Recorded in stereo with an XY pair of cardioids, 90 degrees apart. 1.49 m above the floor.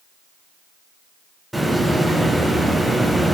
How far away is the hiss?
About 3 m.